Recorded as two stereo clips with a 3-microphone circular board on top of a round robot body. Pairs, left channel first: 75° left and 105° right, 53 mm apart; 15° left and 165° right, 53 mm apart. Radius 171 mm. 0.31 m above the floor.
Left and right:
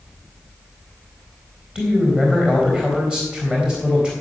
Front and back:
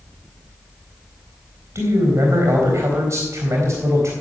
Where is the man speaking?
175° right, 4 m.